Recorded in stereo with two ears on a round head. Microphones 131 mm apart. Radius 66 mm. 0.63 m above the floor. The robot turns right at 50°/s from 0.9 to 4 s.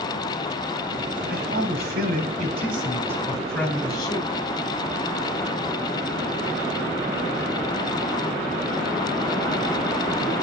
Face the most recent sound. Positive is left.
turn(degrees=25)